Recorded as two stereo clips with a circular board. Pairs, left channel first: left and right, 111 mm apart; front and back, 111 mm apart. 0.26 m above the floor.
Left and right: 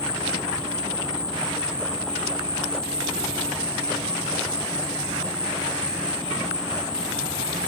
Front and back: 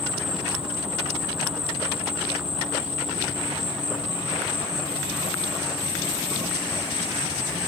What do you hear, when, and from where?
0.0 s an insect: 145° right, 3 m